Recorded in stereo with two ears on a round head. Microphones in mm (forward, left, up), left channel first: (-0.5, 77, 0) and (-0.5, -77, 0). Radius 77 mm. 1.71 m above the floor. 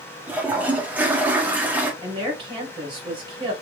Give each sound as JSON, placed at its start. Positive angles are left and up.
{"t": 0.3, "sound": "a toilet flushing", "side_deg": -10, "distance_m": 0.8}
{"t": 2.0, "sound": "a woman speaking", "side_deg": -30, "distance_m": 2.0}